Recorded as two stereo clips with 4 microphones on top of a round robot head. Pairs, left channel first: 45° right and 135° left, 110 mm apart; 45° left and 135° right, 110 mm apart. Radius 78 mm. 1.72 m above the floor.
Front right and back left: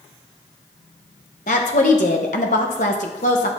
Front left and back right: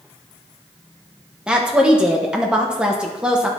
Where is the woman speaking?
55° right, 0.9 m.